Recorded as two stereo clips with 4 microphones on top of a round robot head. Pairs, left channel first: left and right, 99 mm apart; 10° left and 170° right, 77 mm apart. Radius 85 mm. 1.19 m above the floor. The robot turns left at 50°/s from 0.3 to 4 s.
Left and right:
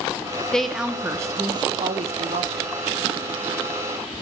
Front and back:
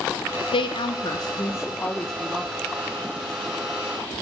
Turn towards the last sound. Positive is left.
turn(degrees=-165)